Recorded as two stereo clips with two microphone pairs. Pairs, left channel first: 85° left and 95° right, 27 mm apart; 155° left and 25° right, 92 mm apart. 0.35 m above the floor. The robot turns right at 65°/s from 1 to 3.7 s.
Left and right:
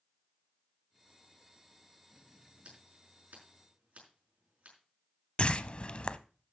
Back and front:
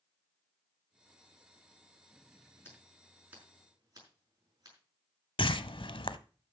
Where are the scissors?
145° right, 5.5 m; by 4.8 s 75° right, 5.5 m.